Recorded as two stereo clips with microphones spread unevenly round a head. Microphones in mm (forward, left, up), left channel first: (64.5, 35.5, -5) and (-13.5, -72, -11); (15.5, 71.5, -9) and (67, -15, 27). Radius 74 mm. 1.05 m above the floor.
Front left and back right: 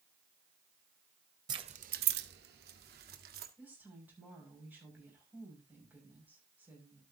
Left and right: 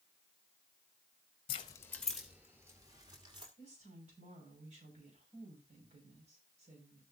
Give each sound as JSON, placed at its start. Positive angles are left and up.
{"t": 1.5, "sound": "keys jangling", "azimuth_deg": 170, "distance_m": 0.6}
{"t": 3.6, "sound": "a woman speaking", "azimuth_deg": -50, "distance_m": 6.0}